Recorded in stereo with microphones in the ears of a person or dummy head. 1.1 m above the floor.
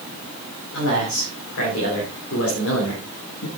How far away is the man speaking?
About 5.5 m.